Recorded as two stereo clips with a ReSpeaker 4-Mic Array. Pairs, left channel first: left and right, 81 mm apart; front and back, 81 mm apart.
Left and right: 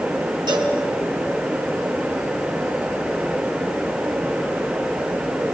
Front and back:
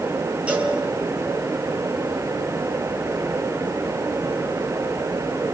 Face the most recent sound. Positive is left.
turn(degrees=-105)